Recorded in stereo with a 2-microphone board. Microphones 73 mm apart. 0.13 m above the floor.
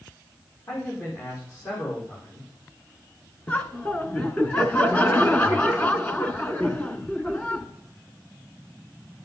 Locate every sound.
0.7 s a man speaking: 45° left (ahead or behind), 6.5 m
3.5 s laughter: 20° left (ahead or behind), 1.3 m